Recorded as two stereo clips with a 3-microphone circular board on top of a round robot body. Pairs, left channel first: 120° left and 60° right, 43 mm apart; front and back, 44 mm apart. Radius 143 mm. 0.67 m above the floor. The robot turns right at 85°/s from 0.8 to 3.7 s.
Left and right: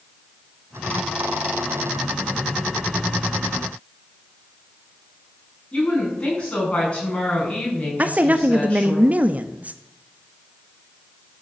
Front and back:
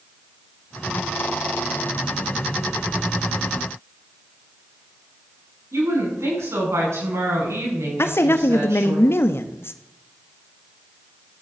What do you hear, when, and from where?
5.7 s a woman speaking: 175° right, 8 m
8.0 s a woman speaking: 10° right, 1.0 m